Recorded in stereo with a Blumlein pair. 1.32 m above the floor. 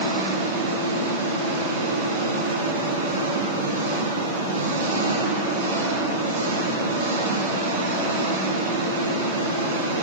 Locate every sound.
0.0 s an engine running: 65° right, 6 m